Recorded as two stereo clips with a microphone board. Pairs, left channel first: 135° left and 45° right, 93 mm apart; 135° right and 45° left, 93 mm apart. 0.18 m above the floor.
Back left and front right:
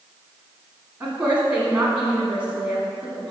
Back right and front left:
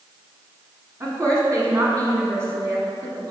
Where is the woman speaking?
20° left, 1.2 m.